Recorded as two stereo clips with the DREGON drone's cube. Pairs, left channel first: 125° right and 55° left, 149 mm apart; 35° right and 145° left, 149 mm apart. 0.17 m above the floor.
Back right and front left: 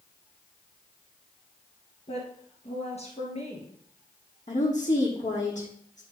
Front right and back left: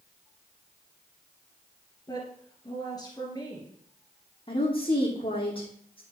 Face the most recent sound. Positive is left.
turn(degrees=-90)